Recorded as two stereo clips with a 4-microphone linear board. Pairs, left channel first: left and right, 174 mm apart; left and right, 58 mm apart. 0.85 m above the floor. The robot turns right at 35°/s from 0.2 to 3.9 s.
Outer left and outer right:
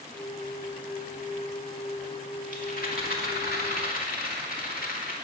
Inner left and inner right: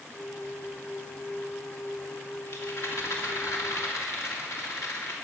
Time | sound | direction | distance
2.5 | a rattle | 60° left | 2 m